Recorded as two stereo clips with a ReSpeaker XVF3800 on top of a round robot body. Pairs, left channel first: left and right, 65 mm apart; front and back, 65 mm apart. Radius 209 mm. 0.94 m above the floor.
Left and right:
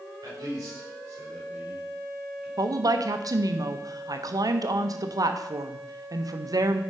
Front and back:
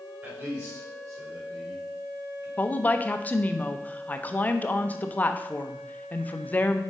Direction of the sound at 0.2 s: 125° right.